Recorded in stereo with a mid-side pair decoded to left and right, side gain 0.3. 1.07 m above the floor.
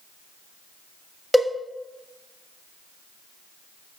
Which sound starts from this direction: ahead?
A cowbell, at 1.3 s.